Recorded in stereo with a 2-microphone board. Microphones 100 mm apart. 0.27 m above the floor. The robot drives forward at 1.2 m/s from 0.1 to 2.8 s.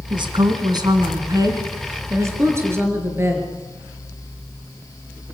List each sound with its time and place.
0.1 s a woman speaking: 55° right (ahead or behind), 2.5 m; by 3.5 s 25° right (ahead or behind), 5 m